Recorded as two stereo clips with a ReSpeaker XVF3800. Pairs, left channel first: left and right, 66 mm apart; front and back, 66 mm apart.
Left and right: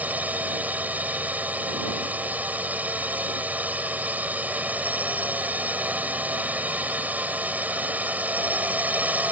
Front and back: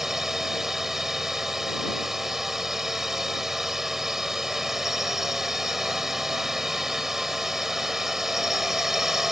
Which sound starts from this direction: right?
A drone, at 0.0 s.